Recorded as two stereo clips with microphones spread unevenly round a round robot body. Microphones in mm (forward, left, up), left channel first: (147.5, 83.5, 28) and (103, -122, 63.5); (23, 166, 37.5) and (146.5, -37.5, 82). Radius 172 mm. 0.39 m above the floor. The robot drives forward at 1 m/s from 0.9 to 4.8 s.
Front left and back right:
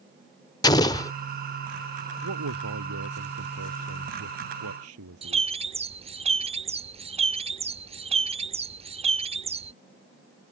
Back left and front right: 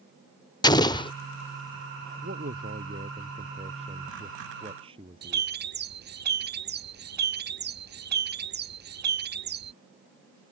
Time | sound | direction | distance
0.6 | an explosion | 100° left | ?
2.2 | a man speaking | 120° right | ?
5.2 | a bird | 50° right | ?